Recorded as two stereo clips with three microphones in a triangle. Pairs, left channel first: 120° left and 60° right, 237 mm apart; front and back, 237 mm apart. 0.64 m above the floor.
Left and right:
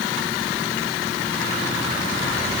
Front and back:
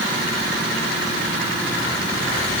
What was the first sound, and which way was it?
Only background noise.